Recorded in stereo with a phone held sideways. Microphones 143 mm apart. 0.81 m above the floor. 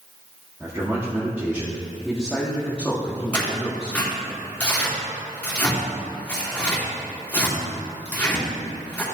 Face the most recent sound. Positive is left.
turn(degrees=10)  # may be behind; listen again after turning